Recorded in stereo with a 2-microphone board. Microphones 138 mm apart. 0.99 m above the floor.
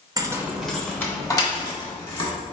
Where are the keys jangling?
30° right (ahead or behind), 0.7 m; by 2.3 s 40° left (ahead or behind), 1.7 m.